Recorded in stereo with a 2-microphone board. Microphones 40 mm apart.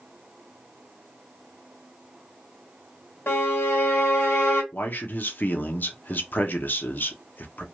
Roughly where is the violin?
Left.